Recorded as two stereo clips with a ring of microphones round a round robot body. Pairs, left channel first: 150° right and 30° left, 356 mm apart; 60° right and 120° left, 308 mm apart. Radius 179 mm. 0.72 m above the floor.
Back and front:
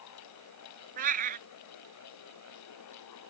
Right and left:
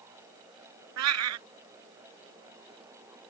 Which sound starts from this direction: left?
A cat meowing, at 1.0 s.